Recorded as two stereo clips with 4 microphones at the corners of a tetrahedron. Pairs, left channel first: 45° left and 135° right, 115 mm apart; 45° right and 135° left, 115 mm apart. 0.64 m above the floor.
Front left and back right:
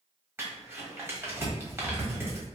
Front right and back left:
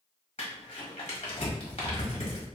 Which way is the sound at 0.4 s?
65° right.